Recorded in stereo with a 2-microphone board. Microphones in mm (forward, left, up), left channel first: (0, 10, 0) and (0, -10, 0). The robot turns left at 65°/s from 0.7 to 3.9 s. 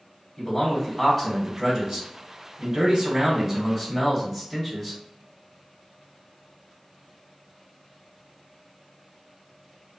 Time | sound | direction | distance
0.4 | a man speaking | 15° left | 1.0 m